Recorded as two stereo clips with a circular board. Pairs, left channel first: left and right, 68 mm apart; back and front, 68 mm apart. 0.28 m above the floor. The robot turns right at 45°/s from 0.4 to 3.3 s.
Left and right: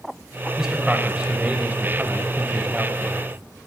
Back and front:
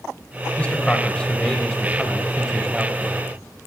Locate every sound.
0.6 s a man speaking: 155° right, 1.1 m; by 3.2 s 35° right, 1.1 m